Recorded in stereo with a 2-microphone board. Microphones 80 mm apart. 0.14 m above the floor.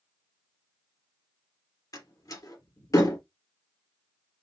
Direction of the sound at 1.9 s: 50° left (ahead or behind).